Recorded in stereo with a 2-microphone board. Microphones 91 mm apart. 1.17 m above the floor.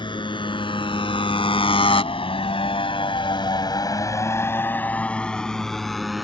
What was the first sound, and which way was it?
A motorcycle, 60° left (ahead or behind).